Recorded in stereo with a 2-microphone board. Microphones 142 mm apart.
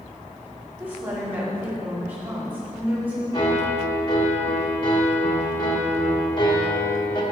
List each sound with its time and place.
0.8 s a woman speaking: 15° right (ahead or behind), 2 m
3.3 s a piano: 35° left (ahead or behind), 1.3 m